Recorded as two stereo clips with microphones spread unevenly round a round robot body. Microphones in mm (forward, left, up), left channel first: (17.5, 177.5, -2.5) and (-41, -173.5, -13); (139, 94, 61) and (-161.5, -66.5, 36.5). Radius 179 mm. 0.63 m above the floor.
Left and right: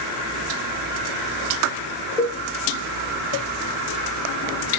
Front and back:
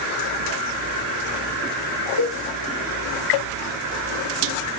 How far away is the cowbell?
About 2.5 m.